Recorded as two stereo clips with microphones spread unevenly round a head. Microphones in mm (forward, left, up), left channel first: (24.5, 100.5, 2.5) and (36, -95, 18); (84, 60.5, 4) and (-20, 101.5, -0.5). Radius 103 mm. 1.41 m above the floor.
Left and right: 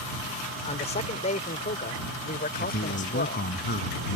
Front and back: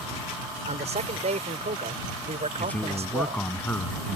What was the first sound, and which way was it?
A man speaking, 155° left.